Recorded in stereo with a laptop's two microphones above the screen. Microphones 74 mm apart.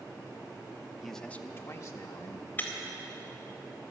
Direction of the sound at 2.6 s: 25° left (ahead or behind).